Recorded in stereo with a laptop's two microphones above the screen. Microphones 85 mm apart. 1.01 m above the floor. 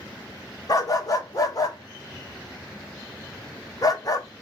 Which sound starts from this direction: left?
A dog barking, at 0.7 s.